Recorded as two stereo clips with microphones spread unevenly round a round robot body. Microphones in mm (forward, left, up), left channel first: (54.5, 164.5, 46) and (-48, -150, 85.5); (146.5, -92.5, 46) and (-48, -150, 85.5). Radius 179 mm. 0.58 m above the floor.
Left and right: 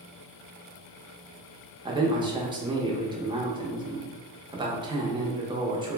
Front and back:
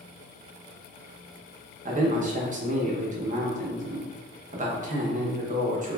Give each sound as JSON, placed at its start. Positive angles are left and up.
{"t": 1.9, "sound": "a man speaking", "azimuth_deg": 175, "distance_m": 0.6}